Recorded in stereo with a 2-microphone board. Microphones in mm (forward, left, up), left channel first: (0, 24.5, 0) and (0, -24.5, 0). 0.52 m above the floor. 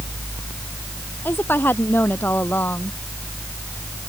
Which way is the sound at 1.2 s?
40° left (ahead or behind).